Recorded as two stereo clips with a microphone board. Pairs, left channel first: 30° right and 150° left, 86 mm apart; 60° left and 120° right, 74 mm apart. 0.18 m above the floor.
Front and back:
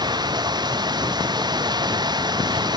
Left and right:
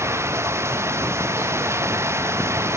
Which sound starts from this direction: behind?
Running water, at 0.0 s.